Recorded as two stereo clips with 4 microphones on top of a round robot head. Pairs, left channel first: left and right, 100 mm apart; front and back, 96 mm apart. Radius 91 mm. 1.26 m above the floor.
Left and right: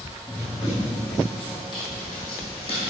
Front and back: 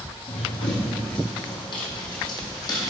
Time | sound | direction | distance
0.3 | running footsteps | 10° left | 2.5 m